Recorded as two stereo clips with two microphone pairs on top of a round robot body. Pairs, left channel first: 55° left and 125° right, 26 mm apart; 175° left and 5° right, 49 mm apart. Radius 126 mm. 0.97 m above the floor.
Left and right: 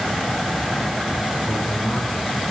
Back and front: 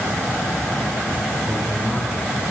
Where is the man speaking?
90° left, 6 m.